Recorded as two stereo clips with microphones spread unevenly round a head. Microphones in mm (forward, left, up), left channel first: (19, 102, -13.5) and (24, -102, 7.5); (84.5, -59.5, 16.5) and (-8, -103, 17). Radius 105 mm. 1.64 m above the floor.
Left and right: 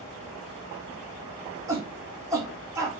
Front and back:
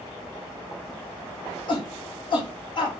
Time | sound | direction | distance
1.7 | a shout | 15° right | 3.5 m